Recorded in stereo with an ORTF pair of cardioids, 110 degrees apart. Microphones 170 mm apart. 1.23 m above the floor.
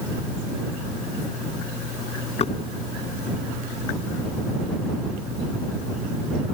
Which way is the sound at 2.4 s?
35° left.